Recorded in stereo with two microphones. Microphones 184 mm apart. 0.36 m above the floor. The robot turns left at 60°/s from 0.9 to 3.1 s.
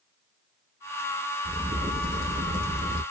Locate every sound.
1.4 s a crack: 45° right, 1.9 m; by 3.0 s 140° right, 1.9 m